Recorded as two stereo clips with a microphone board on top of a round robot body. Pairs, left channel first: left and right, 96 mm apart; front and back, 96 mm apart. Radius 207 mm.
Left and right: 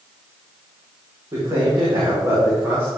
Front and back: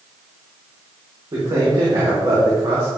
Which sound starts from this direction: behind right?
A man speaking, at 1.3 s.